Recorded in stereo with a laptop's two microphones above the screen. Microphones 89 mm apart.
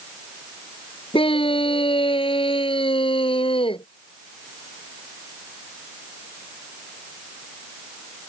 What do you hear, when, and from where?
1.1 s a scream: 85° left; by 3.9 s 80° left